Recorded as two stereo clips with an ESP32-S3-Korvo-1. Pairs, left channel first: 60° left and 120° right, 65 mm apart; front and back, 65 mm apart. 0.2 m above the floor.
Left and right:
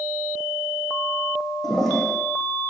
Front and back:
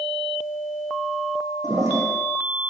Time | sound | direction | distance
1.6 | a toilet flushing | 145° left | 7 m